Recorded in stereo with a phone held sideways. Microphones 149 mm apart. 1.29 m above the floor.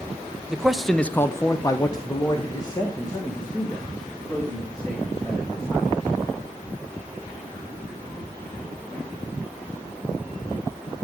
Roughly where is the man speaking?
Centre.